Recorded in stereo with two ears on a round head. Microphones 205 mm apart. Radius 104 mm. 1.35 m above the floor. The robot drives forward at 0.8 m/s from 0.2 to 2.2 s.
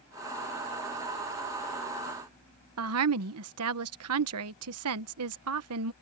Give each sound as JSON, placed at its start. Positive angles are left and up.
{"t": 2.8, "sound": "a woman speaking", "side_deg": -70}